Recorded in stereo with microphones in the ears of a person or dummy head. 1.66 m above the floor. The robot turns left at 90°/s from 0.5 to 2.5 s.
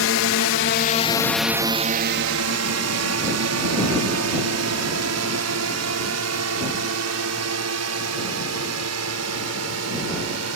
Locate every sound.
0.0 s a drone: 70° left (ahead or behind); by 10.6 s 85° right